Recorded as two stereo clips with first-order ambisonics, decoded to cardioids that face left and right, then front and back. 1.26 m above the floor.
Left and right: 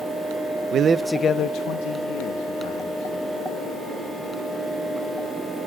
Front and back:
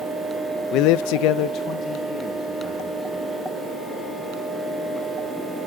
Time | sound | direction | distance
0.7 | a man speaking | 40° right | 0.7 m